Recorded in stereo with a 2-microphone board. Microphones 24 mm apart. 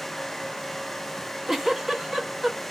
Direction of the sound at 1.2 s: 10° right (ahead or behind).